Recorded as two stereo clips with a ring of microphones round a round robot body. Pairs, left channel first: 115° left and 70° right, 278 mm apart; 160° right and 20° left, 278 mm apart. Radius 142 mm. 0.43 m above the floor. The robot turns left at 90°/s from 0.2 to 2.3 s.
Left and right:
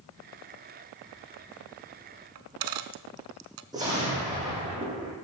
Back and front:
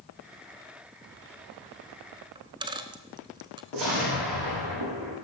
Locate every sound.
2.4 s a dropped coin: 50° right, 0.9 m
3.7 s an explosion: 10° left, 6.5 m